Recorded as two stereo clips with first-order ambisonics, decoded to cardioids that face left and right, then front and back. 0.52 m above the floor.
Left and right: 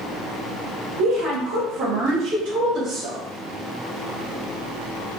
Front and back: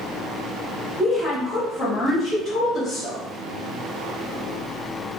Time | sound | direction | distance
1.0 | a woman speaking | 90° right | 1.5 m